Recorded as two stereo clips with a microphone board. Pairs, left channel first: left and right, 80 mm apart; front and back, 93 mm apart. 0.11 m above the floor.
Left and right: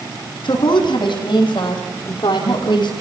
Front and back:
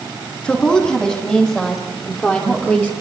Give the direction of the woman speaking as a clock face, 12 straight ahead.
9 o'clock.